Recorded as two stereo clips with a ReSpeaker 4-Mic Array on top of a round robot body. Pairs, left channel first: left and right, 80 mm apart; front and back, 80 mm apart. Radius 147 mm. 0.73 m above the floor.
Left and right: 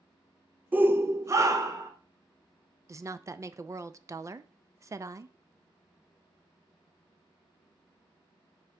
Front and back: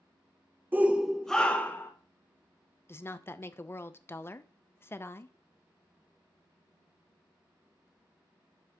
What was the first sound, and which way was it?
A shout, 140° right.